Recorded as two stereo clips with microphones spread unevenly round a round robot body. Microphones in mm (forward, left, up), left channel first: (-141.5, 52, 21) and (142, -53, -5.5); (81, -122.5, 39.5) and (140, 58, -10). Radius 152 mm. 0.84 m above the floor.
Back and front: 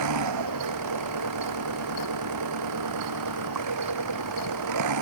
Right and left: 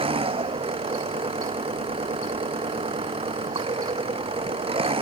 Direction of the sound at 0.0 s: 10° left.